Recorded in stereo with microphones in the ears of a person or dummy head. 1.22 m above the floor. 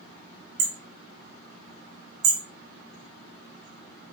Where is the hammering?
70° right (ahead or behind), 3 m.